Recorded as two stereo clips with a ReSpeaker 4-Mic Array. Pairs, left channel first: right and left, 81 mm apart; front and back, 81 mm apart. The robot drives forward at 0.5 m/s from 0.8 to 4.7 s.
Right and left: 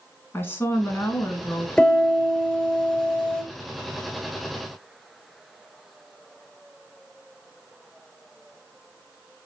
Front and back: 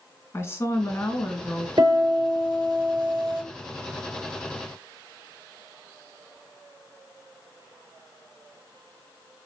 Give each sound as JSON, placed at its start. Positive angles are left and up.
{"t": 0.3, "sound": "a woman speaking", "azimuth_deg": -40, "distance_m": 1.4}
{"t": 1.8, "sound": "a piano", "azimuth_deg": -160, "distance_m": 3.5}